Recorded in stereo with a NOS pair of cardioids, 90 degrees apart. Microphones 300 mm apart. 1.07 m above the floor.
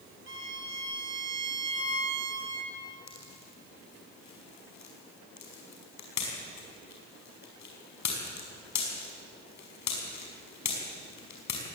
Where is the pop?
65° left, 5.5 m.